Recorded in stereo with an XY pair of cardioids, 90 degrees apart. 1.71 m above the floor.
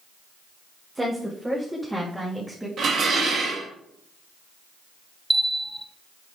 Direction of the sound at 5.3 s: 5° right.